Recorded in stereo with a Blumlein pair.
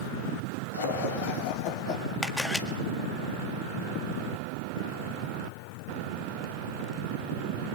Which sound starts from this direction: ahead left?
Laughter, at 0.7 s.